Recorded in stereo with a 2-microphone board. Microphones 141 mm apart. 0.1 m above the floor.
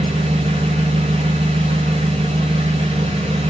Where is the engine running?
40° right (ahead or behind), 0.7 m.